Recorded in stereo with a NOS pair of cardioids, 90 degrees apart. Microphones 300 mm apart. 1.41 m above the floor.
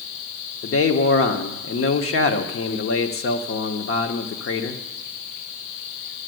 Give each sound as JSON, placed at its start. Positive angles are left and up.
{"t": 0.6, "sound": "a man speaking", "azimuth_deg": 50, "distance_m": 1.3}